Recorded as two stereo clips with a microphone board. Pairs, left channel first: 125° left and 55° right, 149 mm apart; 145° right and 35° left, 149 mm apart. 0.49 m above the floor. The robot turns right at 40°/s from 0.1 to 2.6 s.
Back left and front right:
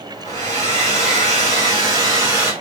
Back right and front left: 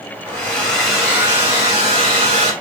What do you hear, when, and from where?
0.2 s a hair dryer: 80° right, 1.6 m; by 2.5 s 10° left, 1.6 m